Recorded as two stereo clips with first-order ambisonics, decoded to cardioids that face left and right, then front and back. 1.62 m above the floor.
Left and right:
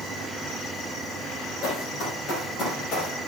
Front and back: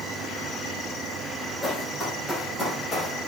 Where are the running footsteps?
85° left, 3.5 m; by 3.1 s 75° left, 2.5 m.